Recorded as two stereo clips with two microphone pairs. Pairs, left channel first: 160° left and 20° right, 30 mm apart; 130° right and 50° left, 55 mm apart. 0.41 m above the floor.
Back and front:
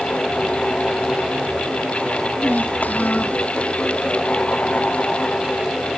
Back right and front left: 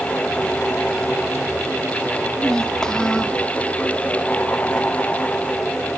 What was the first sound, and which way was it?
A child speaking, 145° left.